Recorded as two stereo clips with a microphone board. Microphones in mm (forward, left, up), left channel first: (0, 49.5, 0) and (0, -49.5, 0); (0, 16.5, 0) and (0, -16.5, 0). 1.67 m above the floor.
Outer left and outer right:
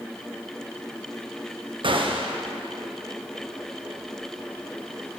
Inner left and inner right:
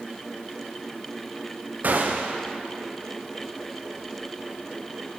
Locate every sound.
1.8 s a gunshot: 60° right (ahead or behind), 0.6 m